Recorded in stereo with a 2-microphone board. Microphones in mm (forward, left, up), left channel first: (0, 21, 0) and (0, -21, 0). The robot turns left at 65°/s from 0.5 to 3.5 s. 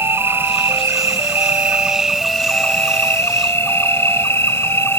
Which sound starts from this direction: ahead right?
An insect, at 0.0 s.